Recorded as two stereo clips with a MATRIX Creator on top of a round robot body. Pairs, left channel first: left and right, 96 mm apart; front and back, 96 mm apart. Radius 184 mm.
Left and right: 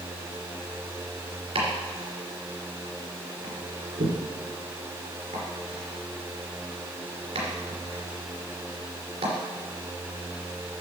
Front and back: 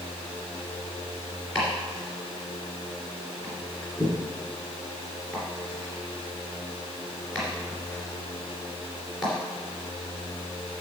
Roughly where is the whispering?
I don't hear whispering.